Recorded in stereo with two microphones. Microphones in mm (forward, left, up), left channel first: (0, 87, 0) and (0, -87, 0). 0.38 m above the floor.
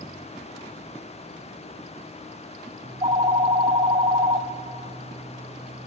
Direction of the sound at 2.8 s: 35° right (ahead or behind).